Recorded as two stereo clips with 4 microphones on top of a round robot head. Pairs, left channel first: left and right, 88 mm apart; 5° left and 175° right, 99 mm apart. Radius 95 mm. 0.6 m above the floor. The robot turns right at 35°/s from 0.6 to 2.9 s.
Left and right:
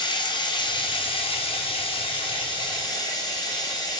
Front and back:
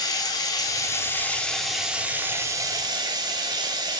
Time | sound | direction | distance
0.0 | running water | 55° left | 0.7 m